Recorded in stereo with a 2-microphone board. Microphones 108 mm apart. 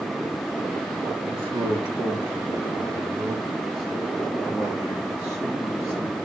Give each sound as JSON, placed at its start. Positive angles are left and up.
{"t": 1.3, "sound": "a man speaking", "side_deg": -50, "distance_m": 3.5}